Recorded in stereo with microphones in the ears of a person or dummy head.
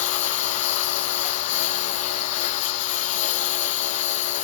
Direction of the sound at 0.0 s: 40° left (ahead or behind).